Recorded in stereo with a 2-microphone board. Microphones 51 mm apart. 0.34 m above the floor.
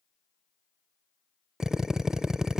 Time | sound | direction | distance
1.6 | a drill | 10° right (ahead or behind) | 0.5 m